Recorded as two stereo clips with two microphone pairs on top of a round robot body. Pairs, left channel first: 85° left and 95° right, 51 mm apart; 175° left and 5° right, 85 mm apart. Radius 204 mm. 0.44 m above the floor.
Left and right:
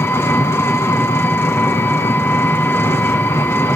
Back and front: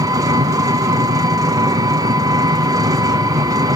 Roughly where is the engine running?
Ahead left.